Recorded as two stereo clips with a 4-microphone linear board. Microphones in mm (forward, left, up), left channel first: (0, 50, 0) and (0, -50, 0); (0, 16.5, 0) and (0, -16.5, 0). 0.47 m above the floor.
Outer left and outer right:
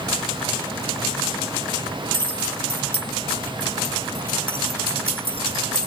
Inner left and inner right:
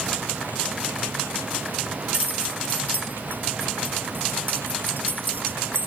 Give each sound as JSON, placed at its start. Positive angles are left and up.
{"t": 2.1, "sound": "keys jangling", "side_deg": -60}